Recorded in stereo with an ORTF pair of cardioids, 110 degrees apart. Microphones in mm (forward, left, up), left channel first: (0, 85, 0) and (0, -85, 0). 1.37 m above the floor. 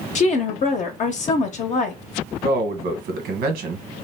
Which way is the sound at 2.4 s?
70° right.